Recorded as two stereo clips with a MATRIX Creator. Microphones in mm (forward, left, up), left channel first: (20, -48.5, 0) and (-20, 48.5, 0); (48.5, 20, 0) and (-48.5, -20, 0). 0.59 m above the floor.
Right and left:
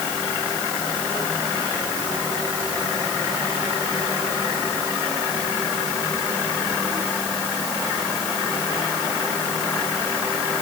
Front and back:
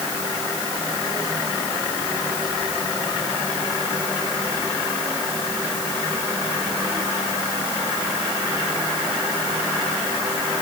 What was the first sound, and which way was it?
Only background noise.